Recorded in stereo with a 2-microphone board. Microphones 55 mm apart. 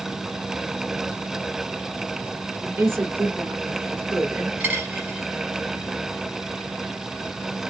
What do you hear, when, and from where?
2.6 s a woman speaking: 45° right (ahead or behind), 2.5 m
4.6 s a dropped coin: 35° right (ahead or behind), 2.5 m